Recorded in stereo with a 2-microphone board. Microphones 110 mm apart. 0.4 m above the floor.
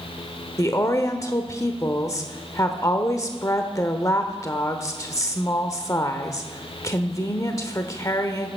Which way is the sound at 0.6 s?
30° left (ahead or behind).